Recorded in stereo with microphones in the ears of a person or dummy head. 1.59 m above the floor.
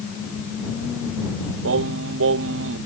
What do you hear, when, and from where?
1.6 s singing: 70° right (ahead or behind)